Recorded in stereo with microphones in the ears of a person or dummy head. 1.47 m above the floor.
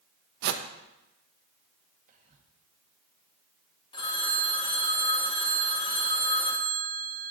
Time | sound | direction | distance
0.4 | a whoosh | 60° right (ahead or behind) | 0.8 m
2.1 | whispering | 35° right (ahead or behind) | 1.7 m
3.9 | a phone ringing | 25° left (ahead or behind) | 1.5 m